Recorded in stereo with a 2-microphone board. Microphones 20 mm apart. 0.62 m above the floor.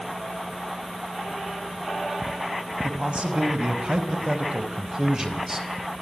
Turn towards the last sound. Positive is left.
turn(degrees=-20)  # may be behind; listen again after turning